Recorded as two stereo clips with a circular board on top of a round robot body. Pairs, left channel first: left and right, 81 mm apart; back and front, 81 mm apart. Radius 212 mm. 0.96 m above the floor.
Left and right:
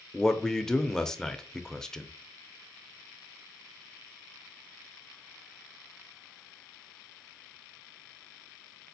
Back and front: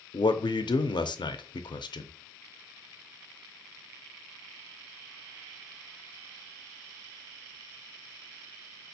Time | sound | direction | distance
0.1 | a man speaking | 175° left | 0.5 m